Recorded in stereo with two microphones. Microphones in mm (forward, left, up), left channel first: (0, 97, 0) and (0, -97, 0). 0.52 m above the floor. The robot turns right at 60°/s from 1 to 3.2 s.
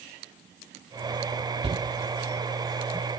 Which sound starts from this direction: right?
A shout, at 1.6 s.